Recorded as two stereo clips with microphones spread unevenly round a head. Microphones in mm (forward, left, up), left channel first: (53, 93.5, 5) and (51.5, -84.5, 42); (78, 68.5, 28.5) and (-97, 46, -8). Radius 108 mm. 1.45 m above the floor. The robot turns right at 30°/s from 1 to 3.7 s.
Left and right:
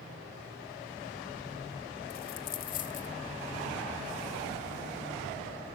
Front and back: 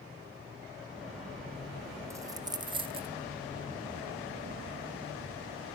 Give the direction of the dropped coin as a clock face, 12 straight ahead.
8 o'clock.